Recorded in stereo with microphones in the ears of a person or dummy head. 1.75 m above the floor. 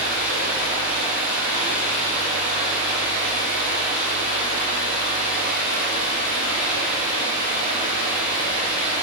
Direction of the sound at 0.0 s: 75° right (ahead or behind).